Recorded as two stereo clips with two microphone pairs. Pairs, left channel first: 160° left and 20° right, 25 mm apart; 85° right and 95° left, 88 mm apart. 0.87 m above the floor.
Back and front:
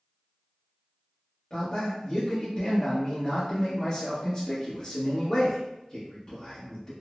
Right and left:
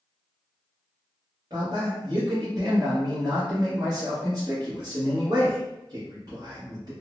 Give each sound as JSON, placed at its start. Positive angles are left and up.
{"t": 1.5, "sound": "a man speaking", "azimuth_deg": 115, "distance_m": 1.1}